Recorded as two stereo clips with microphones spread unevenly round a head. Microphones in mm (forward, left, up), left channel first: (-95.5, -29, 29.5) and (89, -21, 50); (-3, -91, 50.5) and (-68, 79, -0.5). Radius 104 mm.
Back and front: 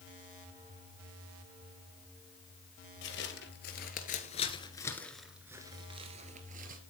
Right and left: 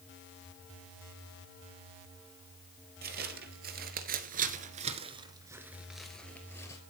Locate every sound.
3.0 s footsteps: 150° left, 2 m; by 6.8 s 15° right, 1.9 m